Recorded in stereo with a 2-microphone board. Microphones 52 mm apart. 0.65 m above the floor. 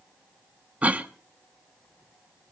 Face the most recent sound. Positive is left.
turn(degrees=-30)  # may be behind; listen again after turning